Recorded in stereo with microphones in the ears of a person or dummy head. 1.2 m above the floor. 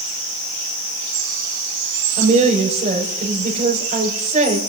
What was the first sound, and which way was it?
A woman speaking, 45° right (ahead or behind).